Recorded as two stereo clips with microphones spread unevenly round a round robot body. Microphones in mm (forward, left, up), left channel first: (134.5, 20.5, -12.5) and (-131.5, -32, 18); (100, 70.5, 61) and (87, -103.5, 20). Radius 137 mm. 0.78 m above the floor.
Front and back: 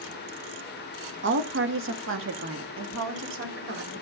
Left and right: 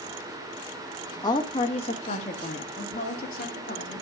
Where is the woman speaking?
160° left, 1.2 m; by 4.0 s 140° left, 3 m.